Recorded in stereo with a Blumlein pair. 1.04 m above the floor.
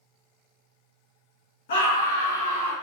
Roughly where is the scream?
Ahead left.